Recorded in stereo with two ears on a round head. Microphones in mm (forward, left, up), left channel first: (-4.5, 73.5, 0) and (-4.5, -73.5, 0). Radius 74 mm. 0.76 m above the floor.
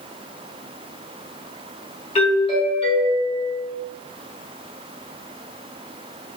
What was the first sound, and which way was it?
A doorbell, 35° left (ahead or behind).